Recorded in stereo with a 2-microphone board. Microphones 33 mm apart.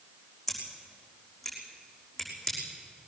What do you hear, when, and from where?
0.5 s scissors: 5° left (ahead or behind), 6 m